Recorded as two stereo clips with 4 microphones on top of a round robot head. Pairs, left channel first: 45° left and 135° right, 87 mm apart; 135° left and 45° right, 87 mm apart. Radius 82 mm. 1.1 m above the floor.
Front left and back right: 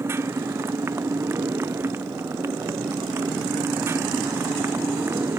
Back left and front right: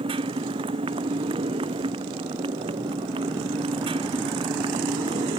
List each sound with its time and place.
0.0 s a motorcycle: 75° right